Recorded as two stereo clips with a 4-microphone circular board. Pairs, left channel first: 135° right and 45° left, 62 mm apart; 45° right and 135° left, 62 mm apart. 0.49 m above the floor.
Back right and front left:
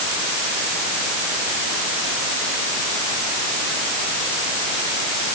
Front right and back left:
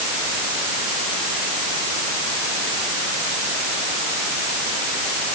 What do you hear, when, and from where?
Only background noise.